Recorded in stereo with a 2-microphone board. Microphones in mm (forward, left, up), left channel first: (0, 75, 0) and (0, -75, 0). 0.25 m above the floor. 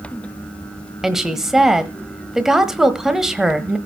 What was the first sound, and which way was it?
A woman speaking, 5° right (ahead or behind).